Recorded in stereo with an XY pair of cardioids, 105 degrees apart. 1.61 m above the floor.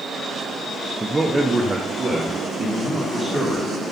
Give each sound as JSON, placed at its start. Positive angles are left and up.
{"t": 1.0, "sound": "a man speaking", "azimuth_deg": -15, "distance_m": 0.8}